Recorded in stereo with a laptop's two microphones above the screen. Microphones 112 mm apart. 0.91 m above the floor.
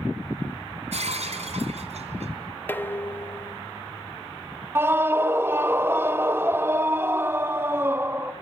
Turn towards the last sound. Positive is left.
turn(degrees=-20)  # may be behind; listen again after turning